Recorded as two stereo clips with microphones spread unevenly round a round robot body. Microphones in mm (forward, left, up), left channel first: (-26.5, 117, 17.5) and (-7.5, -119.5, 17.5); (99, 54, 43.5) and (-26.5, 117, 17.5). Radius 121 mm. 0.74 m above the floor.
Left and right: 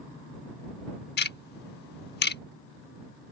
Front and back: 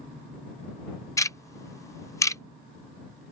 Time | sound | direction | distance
1.2 | ticking | 40° left | ?